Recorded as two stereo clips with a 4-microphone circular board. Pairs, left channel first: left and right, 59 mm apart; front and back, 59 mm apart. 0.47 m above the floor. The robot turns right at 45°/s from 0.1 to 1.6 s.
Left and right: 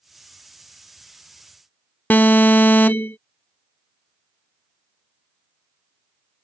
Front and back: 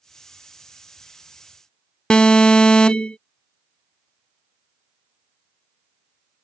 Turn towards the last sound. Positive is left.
turn(degrees=60)